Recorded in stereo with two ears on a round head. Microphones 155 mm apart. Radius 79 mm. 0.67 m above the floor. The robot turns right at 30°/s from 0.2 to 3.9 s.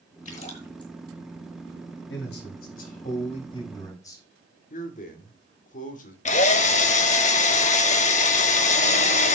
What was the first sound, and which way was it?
A splash, 45° left (ahead or behind).